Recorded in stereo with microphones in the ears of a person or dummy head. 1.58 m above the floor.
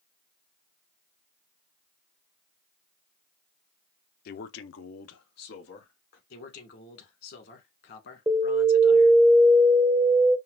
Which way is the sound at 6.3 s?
60° left (ahead or behind).